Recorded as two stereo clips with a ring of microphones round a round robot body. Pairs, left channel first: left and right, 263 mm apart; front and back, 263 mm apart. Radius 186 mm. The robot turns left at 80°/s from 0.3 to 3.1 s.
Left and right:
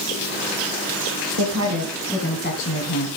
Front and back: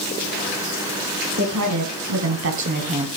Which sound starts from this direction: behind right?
A woman speaking, at 1.4 s.